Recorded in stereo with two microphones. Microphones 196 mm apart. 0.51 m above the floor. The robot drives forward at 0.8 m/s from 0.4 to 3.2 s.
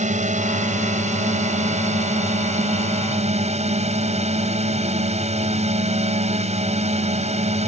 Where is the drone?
35° right (ahead or behind).